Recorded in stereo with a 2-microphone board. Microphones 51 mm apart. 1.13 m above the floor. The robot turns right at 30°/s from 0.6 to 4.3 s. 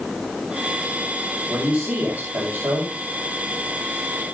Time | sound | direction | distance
1.5 | a man speaking | 140° right | 6.5 m